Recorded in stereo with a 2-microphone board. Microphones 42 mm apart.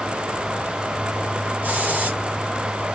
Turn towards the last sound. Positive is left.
turn(degrees=-40)  # may be behind; listen again after turning